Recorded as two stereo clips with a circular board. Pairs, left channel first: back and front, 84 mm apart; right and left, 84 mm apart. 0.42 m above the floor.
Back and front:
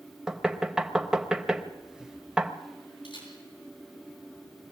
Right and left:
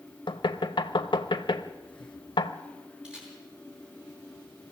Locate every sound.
0.3 s knocking: 80° right, 1.0 m
3.0 s a camera shutter: 170° left, 5.5 m